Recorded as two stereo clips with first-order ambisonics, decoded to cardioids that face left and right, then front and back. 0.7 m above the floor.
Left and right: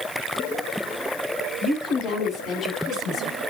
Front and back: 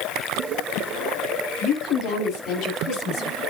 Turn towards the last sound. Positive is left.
turn(degrees=40)